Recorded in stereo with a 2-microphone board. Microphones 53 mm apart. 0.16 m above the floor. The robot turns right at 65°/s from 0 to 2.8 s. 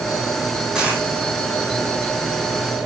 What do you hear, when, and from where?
0.8 s a dropped coin: 15° right (ahead or behind), 3.5 m; by 1.1 s 35° right (ahead or behind), 3.5 m